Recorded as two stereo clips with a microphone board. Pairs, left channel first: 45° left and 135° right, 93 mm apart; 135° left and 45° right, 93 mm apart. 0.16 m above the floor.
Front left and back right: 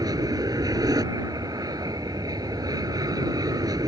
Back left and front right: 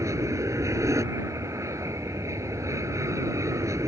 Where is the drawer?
No drawer in this recording.